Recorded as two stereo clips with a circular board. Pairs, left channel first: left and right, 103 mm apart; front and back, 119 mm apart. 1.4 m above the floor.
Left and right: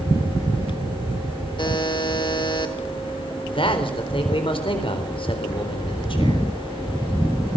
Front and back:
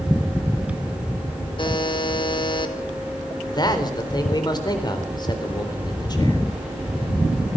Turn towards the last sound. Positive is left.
turn(degrees=55)